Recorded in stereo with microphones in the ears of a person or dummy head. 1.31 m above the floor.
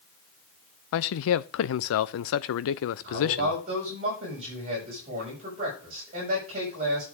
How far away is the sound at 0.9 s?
About 0.6 m.